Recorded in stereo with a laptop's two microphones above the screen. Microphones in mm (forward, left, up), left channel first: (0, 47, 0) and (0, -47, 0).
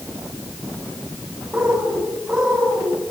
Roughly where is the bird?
Centre.